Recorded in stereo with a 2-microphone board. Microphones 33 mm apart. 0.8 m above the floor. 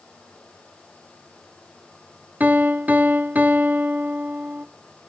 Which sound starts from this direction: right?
A piano, at 2.4 s.